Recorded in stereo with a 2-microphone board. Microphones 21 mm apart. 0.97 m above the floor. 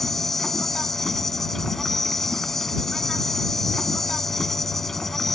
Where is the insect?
15° left (ahead or behind).